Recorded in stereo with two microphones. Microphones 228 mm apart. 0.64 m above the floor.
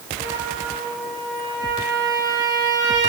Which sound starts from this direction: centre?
A trumpet, at 0.2 s.